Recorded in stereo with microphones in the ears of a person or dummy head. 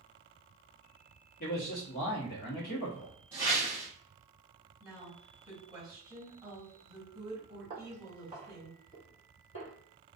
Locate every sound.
1.4 s a man speaking: 45° left (ahead or behind), 1.0 m
3.3 s a whoosh: 15° right (ahead or behind), 0.9 m
4.8 s a woman speaking: 15° right (ahead or behind), 1.6 m
7.7 s footsteps: 20° right (ahead or behind), 1.7 m; by 9.7 s 30° left (ahead or behind), 1.8 m